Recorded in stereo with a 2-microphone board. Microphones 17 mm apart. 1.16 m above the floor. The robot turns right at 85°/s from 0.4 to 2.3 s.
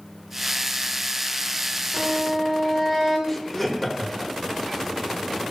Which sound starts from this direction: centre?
Laughter, at 3.3 s.